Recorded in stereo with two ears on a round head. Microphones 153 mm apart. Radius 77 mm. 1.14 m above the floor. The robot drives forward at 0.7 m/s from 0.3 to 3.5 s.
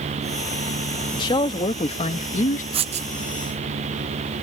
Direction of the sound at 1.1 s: 25° left (ahead or behind).